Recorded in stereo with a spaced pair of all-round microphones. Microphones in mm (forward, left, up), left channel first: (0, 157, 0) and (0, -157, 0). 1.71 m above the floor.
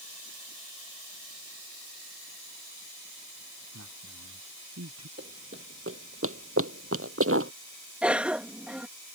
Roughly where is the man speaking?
Right.